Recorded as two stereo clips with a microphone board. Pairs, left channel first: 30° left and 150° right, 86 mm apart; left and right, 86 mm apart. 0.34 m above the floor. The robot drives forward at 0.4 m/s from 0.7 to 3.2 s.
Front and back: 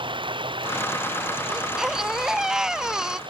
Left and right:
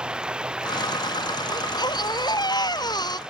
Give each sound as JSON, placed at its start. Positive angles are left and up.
{"t": 0.0, "sound": "running water", "azimuth_deg": -170}
{"t": 1.5, "sound": "a baby crying", "azimuth_deg": 125}